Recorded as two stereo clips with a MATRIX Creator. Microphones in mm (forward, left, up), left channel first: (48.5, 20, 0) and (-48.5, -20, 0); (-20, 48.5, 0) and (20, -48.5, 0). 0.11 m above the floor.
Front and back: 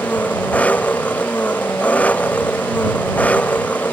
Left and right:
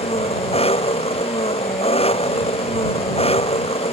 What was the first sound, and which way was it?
An engine running, 100° left.